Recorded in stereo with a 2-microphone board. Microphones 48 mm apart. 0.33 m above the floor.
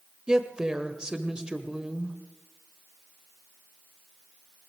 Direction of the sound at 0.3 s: 15° right (ahead or behind).